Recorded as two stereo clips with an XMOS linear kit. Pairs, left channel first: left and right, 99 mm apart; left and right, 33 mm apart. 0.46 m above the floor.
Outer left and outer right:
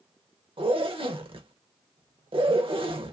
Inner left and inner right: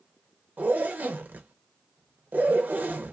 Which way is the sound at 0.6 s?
65° right (ahead or behind).